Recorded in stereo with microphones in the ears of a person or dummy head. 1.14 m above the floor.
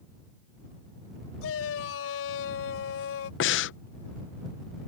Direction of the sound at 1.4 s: 75° left (ahead or behind).